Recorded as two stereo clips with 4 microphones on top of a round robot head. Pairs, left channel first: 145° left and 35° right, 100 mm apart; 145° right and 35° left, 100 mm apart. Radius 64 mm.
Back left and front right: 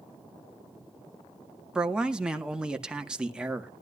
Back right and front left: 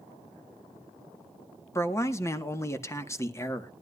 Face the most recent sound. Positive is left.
turn(degrees=-110)